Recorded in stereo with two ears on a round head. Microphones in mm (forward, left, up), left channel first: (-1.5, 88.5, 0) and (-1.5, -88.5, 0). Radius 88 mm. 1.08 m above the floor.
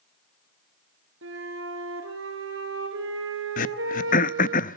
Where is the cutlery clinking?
I don't hear cutlery clinking.